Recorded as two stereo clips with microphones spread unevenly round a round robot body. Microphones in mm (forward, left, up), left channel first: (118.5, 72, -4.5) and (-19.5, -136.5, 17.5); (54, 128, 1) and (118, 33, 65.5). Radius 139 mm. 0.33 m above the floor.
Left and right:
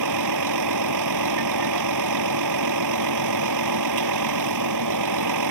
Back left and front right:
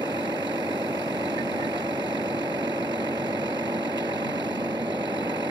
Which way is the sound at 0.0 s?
130° right.